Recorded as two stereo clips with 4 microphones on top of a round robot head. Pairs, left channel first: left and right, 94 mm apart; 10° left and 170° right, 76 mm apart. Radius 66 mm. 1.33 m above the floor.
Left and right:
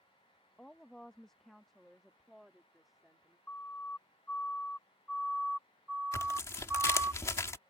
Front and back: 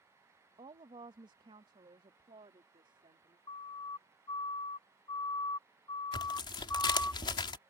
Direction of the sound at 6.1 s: 30° left.